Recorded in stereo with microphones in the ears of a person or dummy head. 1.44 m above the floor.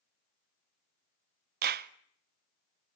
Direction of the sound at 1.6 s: 55° right (ahead or behind).